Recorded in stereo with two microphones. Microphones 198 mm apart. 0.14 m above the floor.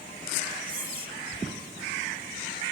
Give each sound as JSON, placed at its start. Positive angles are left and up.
{"t": 0.7, "sound": "whispering", "side_deg": -25, "distance_m": 1.5}